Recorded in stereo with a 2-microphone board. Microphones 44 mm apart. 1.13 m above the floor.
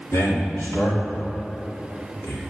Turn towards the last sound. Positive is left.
turn(degrees=75)  # may be behind; listen again after turning